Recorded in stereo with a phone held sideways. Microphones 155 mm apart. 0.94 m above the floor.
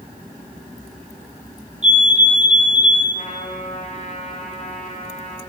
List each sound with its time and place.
1.8 s a fire alarm: 45° right (ahead or behind), 4 m
3.1 s a trumpet: 55° left (ahead or behind), 8 m